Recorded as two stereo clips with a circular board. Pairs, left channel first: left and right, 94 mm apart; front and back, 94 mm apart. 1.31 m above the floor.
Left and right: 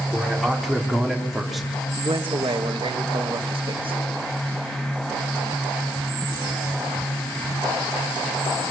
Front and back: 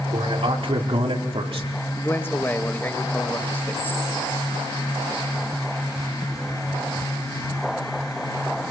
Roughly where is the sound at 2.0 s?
Right.